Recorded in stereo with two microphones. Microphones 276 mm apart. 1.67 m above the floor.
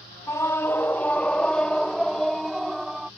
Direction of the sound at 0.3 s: 10° left (ahead or behind).